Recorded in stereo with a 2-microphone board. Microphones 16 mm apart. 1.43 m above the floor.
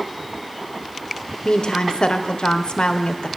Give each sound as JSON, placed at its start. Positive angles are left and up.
{"t": 1.4, "sound": "a woman speaking", "side_deg": 85, "distance_m": 0.6}